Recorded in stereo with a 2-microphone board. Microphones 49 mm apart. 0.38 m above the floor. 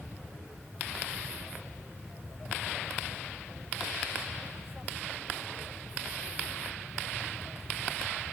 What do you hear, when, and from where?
Only background noise.